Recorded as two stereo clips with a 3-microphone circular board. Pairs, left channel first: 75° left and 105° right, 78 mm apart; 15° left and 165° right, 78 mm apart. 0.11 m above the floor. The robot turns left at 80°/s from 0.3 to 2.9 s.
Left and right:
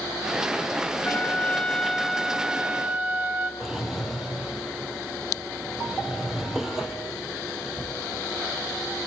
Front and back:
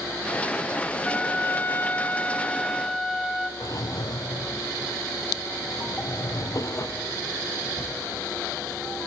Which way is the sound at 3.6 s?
20° right.